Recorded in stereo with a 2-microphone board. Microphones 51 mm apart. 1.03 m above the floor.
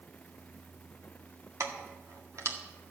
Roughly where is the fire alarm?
No fire alarm in this recording.